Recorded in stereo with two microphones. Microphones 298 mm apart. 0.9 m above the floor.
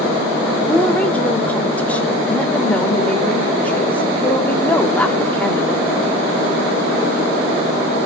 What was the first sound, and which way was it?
A woman speaking, 5° left (ahead or behind).